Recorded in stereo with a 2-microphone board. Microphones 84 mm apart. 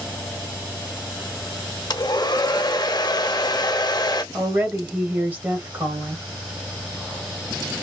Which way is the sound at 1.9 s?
50° left (ahead or behind).